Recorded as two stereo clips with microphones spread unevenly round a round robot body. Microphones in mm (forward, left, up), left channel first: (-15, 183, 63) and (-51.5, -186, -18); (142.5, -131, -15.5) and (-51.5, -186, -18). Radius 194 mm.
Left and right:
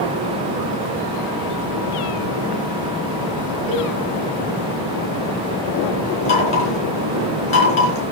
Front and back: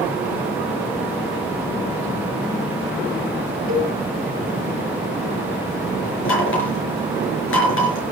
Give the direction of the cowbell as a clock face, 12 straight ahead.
6 o'clock.